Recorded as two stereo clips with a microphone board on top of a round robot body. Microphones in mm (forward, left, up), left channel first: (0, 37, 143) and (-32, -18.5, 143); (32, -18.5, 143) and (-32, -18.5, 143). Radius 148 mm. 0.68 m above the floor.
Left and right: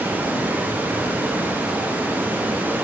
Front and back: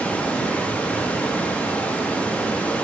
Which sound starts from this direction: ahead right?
Running water, at 0.0 s.